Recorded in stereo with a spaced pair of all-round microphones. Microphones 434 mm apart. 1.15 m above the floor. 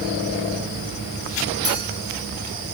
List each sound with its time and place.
1.6 s a clink: 60° left (ahead or behind), 9.5 m